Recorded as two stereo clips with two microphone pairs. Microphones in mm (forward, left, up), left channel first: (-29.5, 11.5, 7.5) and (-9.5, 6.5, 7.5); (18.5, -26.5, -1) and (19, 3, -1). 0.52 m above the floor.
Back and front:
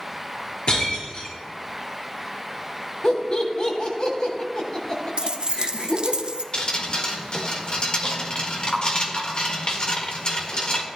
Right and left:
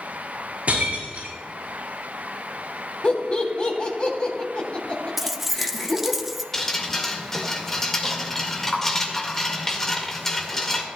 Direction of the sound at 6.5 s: 165° right.